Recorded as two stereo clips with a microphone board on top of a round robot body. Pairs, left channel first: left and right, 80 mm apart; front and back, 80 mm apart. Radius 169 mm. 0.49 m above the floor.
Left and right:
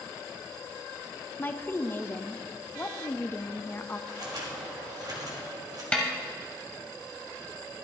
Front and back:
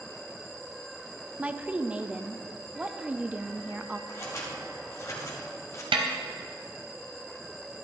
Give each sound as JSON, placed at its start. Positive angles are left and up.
{"t": 1.4, "sound": "a woman speaking", "azimuth_deg": 125, "distance_m": 0.7}
{"t": 4.1, "sound": "scissors", "azimuth_deg": -50, "distance_m": 1.6}
{"t": 5.9, "sound": "a snare drum", "azimuth_deg": 170, "distance_m": 0.6}